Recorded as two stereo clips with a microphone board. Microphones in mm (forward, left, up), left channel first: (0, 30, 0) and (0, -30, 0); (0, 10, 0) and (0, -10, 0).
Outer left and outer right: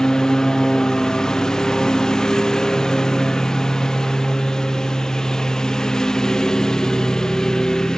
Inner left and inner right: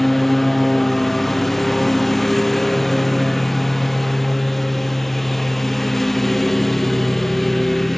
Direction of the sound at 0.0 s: 10° left (ahead or behind).